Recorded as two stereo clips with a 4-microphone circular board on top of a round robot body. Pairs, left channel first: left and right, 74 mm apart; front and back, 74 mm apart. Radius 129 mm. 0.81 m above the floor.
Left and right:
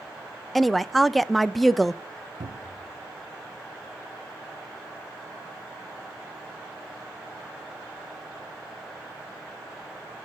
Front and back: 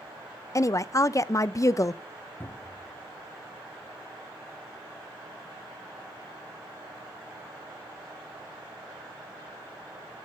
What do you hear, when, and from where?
0.6 s a woman speaking: 5° left, 0.6 m
2.4 s a cupboard door: 65° right, 0.8 m